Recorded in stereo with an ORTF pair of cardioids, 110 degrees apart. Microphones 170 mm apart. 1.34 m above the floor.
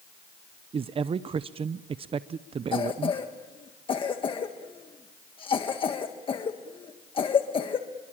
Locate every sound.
0.7 s a man speaking: 35° right, 0.6 m
2.7 s a cough: 30° left, 1.6 m